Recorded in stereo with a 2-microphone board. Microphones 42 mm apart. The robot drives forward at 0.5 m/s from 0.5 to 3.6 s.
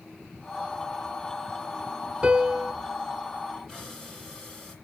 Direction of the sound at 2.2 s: 20° right (ahead or behind).